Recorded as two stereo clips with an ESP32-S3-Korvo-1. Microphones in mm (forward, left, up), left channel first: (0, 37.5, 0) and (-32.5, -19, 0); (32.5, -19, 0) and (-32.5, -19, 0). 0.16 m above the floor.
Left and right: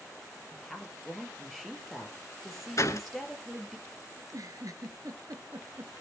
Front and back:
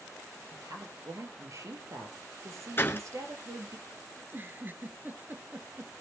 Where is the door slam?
45° left, 1.3 m.